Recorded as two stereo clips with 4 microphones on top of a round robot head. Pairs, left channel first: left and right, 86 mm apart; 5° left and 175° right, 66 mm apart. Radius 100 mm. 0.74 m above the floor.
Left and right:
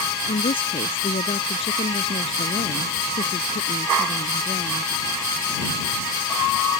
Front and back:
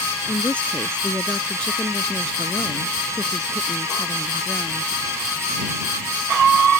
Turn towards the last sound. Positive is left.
turn(degrees=90)